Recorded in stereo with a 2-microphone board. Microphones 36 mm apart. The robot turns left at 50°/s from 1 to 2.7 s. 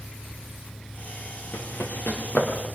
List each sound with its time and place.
1.5 s running footsteps: 75° left (ahead or behind), 4 m; by 2.7 s 30° left (ahead or behind), 4.5 m